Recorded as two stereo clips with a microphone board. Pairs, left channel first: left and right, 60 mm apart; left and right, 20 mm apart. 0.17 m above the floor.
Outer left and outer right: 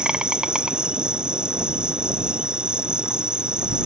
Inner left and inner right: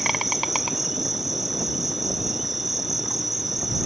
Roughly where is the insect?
Centre.